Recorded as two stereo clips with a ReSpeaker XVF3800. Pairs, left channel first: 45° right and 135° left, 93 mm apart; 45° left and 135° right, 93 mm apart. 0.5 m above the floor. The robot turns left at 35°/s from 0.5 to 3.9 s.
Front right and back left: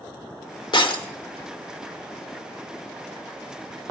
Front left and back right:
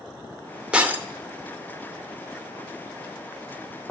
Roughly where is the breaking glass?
Ahead right.